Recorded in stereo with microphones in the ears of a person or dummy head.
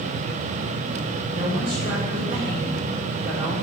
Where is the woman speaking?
30° right (ahead or behind), 6 m.